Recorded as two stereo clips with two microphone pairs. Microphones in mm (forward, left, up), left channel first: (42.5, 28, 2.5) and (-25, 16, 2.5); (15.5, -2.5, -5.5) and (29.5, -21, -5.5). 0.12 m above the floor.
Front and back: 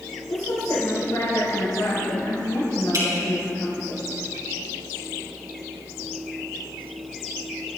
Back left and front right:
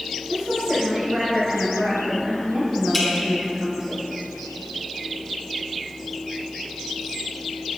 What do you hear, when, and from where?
0.3 s a woman speaking: 10° left, 5.5 m
2.9 s dripping: 140° right, 4 m